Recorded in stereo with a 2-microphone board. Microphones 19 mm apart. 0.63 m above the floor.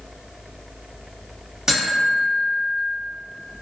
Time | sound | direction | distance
1.7 | a buzzer | 30° right (ahead or behind) | 1.3 m